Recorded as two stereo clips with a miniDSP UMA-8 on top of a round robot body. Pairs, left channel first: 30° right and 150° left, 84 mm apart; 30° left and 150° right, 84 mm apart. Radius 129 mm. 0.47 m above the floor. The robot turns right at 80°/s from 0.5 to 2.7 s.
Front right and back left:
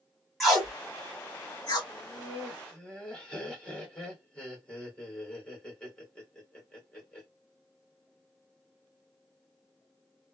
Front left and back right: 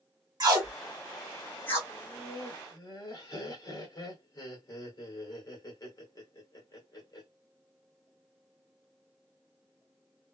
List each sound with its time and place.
0.4 s tape being pulled: 120° right, 2.0 m; by 1.8 s 20° right, 2.0 m
1.9 s laughter: 20° right, 1.8 m; by 7.3 s 45° left, 1.8 m